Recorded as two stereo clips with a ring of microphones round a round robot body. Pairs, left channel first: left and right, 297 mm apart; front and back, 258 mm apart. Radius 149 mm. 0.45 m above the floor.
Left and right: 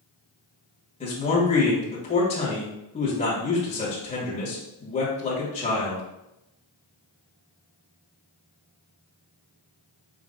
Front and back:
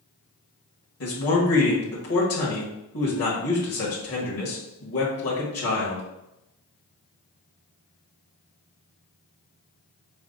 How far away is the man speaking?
About 1.6 m.